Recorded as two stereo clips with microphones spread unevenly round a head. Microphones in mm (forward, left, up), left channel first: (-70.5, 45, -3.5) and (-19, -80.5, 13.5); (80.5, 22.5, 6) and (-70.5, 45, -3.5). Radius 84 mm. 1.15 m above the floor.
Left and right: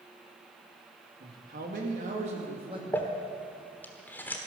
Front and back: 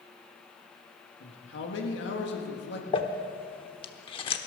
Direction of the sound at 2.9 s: 30° left.